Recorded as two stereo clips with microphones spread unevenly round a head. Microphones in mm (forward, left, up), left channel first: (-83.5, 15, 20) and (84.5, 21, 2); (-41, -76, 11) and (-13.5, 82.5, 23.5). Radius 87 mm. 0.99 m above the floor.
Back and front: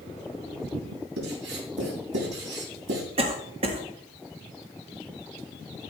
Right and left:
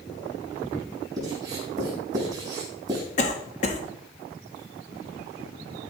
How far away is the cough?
About 1.7 m.